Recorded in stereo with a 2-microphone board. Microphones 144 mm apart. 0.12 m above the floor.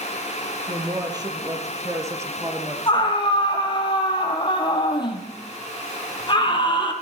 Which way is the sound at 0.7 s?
30° right (ahead or behind).